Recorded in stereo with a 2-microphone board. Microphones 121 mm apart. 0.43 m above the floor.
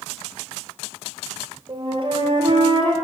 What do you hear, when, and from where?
1.7 s a flute: 45° right (ahead or behind), 1.9 m